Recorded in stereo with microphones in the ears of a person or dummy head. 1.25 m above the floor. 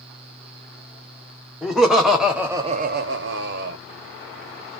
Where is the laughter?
5° left (ahead or behind), 1.0 m; by 3.8 s 55° right (ahead or behind), 0.7 m.